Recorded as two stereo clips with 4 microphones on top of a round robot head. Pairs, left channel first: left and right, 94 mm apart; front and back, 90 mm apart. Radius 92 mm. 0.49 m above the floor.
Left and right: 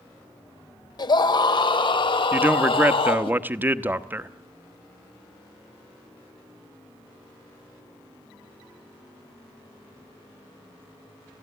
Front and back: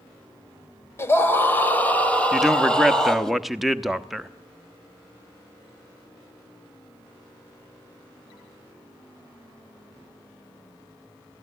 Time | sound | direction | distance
1.0 | a scream | 60° left | 2.5 m
2.3 | a man speaking | 95° right | 1.0 m